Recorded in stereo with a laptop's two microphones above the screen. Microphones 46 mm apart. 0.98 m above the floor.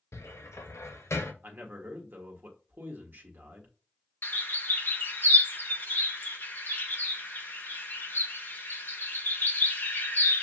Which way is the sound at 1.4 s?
40° right (ahead or behind).